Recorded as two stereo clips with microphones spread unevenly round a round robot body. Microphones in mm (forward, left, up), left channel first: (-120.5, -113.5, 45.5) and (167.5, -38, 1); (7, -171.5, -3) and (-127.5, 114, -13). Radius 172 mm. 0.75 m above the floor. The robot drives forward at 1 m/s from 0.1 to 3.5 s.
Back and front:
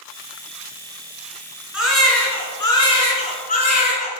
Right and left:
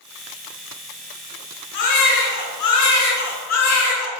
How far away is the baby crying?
About 3.5 m.